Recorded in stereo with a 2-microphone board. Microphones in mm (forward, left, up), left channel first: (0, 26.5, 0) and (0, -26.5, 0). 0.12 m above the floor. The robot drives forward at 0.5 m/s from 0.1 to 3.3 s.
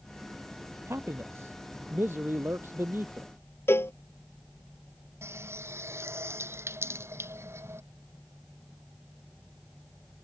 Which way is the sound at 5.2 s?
60° right (ahead or behind).